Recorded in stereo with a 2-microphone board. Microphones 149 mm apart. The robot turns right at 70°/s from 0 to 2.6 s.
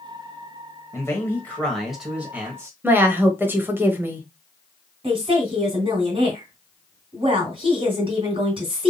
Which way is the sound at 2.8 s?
15° right (ahead or behind).